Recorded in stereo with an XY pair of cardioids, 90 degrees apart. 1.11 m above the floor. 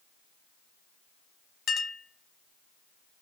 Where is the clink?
60° left, 0.8 m.